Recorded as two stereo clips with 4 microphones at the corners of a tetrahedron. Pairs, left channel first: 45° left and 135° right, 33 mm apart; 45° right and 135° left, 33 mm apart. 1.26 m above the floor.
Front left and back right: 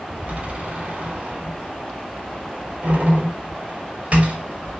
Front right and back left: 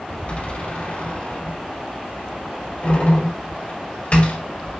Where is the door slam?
95° right, 2.5 m.